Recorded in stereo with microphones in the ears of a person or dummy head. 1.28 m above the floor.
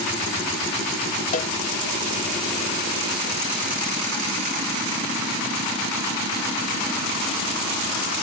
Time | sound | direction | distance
1.3 | a cowbell | 40° left (ahead or behind) | ?